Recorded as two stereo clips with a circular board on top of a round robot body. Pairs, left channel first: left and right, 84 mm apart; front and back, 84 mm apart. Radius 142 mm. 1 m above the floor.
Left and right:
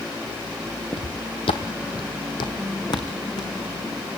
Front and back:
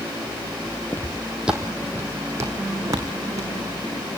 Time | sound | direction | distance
0.9 | footsteps | 65° left | 1.2 m